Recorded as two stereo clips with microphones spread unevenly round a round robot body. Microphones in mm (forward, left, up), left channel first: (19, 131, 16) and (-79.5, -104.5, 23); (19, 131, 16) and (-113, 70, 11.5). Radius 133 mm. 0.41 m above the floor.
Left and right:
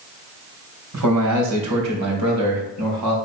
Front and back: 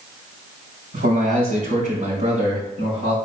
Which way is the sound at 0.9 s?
120° right.